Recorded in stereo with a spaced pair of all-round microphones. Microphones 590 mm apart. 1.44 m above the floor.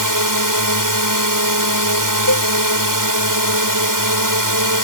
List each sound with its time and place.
0.0 s a drone: 35° right (ahead or behind)
2.3 s a cowbell: 35° left (ahead or behind)